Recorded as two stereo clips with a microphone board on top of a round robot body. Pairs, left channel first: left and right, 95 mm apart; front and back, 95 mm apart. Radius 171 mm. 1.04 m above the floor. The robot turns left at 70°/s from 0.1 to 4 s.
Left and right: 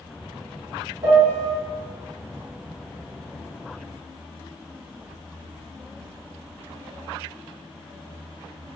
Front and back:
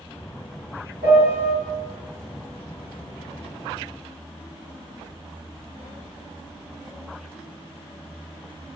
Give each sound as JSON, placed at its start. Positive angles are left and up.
{"t": 1.0, "sound": "a piano", "azimuth_deg": -45, "distance_m": 1.8}